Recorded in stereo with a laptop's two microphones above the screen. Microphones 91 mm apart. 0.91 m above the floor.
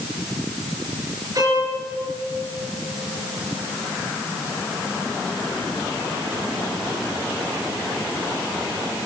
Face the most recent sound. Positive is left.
turn(degrees=-40)  # may be behind; listen again after turning